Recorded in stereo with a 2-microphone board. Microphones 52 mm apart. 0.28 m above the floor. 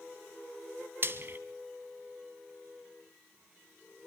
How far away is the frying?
About 1.3 m.